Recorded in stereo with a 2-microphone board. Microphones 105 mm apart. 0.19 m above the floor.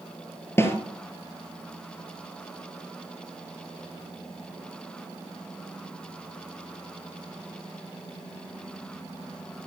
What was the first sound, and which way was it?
A snare drum, 25° left (ahead or behind).